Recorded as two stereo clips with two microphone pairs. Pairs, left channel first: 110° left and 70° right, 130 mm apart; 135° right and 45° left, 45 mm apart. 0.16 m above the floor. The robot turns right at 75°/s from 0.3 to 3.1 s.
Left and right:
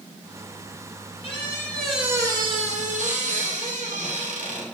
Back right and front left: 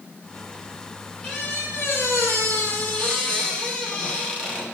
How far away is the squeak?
About 2.5 m.